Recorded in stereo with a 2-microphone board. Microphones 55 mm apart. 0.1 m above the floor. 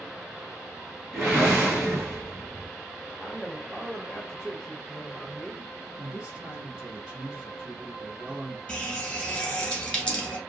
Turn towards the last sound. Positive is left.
turn(degrees=15)  # may be behind; listen again after turning